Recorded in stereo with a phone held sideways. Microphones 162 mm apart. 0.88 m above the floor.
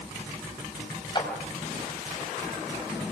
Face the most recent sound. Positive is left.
turn(degrees=30)  # may be behind; listen again after turning